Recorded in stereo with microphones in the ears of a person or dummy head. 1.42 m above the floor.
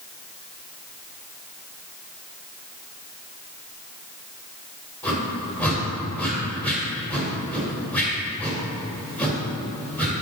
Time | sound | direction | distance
5.0 | a whoosh | 5° left (ahead or behind) | 2.5 m